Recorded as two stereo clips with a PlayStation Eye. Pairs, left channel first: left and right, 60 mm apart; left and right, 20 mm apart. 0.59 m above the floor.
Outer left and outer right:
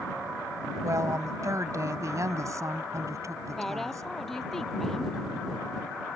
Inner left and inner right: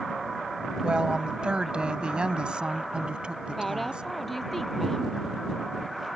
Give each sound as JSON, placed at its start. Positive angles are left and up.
{"t": 0.8, "sound": "a woman speaking", "side_deg": -60}
{"t": 3.6, "sound": "a woman speaking", "side_deg": 5}